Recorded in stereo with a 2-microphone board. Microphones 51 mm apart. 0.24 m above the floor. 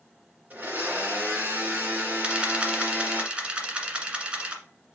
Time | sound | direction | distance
0.5 | a blender | 30° right (ahead or behind) | 2.5 m
2.2 | a camera shutter | 20° right (ahead or behind) | 1.5 m